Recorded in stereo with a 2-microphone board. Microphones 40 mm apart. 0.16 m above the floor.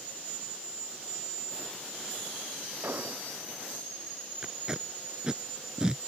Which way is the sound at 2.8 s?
65° right (ahead or behind).